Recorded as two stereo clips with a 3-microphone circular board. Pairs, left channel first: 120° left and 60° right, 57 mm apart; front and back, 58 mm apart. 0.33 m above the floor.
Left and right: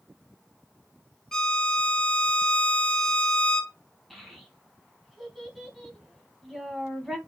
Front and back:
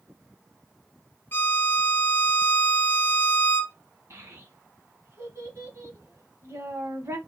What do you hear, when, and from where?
1.3 s a violin: 45° left, 0.6 m
4.1 s a child speaking: 150° right, 1.5 m